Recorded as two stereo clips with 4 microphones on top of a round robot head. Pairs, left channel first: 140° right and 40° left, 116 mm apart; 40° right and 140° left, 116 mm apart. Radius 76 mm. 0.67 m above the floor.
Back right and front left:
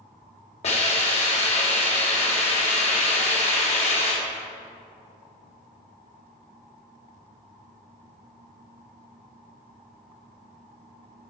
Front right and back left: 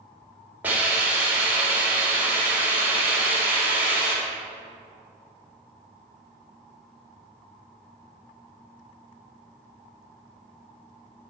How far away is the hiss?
About 3 m.